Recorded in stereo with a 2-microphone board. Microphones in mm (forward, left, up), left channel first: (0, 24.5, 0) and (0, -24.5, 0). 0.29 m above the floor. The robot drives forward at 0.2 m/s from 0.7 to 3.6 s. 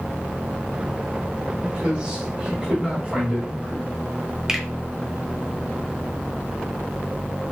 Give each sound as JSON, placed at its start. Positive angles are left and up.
{"t": 1.6, "sound": "a man speaking", "side_deg": -25, "distance_m": 1.3}
{"t": 4.5, "sound": "a finger snap", "side_deg": -15, "distance_m": 0.7}